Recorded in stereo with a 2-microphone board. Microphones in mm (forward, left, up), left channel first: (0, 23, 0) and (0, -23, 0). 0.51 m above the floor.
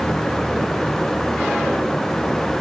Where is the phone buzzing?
I don't hear a phone buzzing.